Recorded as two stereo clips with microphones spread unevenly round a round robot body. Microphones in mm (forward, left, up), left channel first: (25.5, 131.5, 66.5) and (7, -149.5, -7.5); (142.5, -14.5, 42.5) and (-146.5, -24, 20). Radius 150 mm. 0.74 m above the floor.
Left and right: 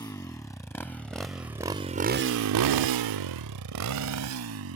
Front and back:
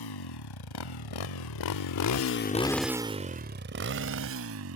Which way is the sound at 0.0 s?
10° left.